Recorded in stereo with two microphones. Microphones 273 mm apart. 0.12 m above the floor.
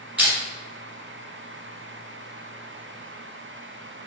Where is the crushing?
5° right (ahead or behind), 1.9 m.